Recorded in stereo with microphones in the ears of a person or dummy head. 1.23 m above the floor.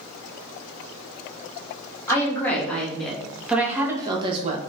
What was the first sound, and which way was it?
A woman speaking, 10° left (ahead or behind).